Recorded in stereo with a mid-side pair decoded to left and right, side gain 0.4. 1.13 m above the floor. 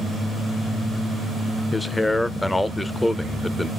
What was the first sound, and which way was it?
A man speaking, 15° left.